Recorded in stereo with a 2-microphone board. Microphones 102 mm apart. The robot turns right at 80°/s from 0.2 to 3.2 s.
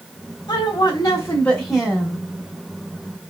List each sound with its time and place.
0.5 s a woman speaking: 80° left, 0.9 m; by 2.2 s 140° right, 0.9 m